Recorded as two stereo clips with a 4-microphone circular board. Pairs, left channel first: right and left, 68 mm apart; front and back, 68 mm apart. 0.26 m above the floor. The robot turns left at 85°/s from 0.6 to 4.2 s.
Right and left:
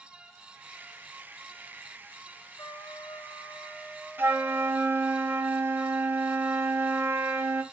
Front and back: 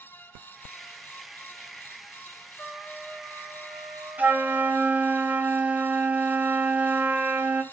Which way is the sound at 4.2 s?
130° left.